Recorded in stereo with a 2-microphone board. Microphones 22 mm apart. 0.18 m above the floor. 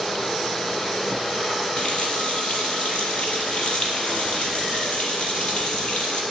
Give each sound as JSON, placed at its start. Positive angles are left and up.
{"t": 1.8, "sound": "a running tap", "side_deg": 60, "distance_m": 3.0}